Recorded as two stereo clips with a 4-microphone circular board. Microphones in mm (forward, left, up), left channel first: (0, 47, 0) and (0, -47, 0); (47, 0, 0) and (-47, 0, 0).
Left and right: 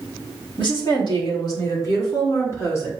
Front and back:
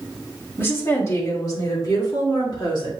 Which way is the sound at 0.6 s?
65° left.